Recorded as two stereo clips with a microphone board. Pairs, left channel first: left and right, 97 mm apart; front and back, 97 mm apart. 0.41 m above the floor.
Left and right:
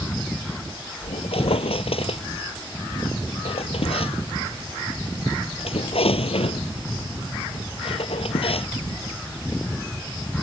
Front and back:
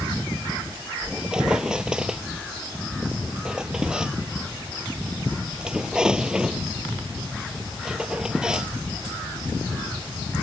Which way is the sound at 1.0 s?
100° left.